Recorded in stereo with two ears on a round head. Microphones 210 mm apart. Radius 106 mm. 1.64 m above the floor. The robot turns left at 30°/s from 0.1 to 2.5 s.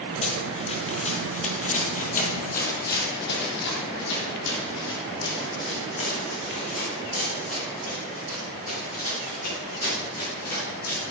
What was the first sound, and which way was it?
Running footsteps, 30° left (ahead or behind).